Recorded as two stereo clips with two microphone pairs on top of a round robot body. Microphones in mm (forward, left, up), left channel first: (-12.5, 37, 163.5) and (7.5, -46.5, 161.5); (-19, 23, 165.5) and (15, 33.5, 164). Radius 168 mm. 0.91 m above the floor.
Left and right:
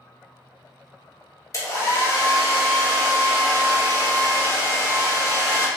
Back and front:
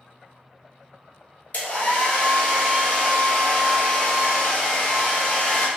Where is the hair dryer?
155° left, 1.3 m.